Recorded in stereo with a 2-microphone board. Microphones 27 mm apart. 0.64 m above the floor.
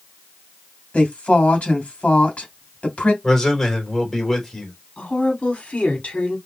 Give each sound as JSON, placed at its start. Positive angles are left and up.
{"t": 0.9, "sound": "a woman speaking", "side_deg": 50, "distance_m": 2.5}
{"t": 3.2, "sound": "a man speaking", "side_deg": 15, "distance_m": 3.0}
{"t": 5.0, "sound": "a woman speaking", "side_deg": 55, "distance_m": 2.0}